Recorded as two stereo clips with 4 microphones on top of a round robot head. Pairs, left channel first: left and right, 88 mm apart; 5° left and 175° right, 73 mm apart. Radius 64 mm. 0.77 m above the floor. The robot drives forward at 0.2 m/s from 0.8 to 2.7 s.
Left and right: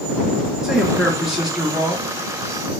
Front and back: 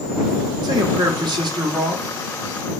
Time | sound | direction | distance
0.6 | a man speaking | 175° right | 0.7 m